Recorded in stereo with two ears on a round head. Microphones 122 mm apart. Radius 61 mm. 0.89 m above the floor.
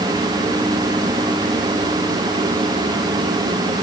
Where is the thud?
I don't hear a thud.